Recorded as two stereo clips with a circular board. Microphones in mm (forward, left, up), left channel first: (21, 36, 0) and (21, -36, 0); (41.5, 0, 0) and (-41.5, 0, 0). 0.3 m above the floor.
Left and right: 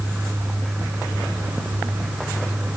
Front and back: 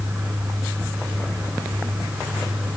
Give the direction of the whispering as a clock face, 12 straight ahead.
No whispering in this recording.